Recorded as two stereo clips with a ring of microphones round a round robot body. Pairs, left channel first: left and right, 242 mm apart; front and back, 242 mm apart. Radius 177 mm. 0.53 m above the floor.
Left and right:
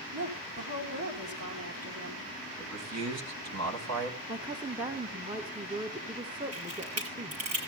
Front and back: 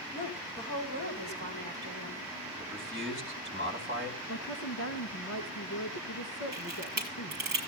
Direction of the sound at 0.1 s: 125° right.